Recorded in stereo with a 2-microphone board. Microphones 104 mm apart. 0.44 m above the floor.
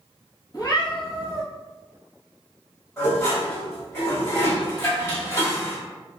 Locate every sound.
0.5 s a cat meowing: 40° left (ahead or behind), 1.0 m
3.0 s dishes clattering: 25° left (ahead or behind), 1.5 m